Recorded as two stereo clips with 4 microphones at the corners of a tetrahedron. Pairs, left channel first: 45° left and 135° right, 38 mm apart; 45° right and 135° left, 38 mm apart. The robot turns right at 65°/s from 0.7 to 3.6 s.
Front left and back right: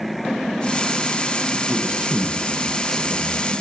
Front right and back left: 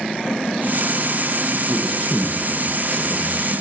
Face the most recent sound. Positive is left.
turn(degrees=5)